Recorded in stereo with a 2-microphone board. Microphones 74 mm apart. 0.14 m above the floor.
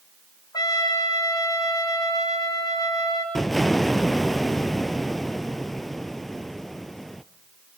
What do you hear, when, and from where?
0.5 s a trumpet: 60° left (ahead or behind), 7 m
3.4 s an explosion: 5° left (ahead or behind), 1.0 m